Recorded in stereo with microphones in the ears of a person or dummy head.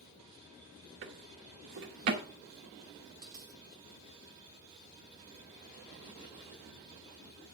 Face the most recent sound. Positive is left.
turn(degrees=-20)  # may be behind; listen again after turning